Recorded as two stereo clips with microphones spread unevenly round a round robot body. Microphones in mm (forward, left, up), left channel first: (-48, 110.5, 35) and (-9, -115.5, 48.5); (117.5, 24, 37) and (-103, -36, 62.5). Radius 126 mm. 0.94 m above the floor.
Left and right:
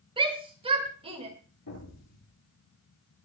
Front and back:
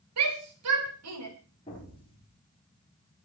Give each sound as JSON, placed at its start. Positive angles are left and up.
{"t": 0.2, "sound": "a shout", "azimuth_deg": -150, "distance_m": 5.0}
{"t": 1.7, "sound": "an explosion", "azimuth_deg": 85, "distance_m": 9.5}